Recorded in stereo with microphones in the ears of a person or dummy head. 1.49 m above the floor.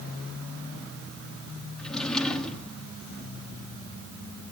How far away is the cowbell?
No cowbell in this recording.